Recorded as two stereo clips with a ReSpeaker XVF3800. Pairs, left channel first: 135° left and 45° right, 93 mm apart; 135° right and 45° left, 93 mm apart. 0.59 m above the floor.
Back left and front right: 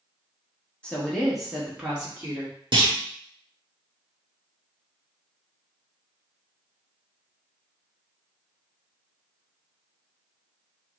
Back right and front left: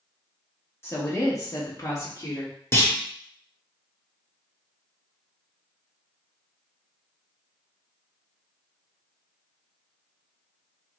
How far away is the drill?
I don't hear a drill.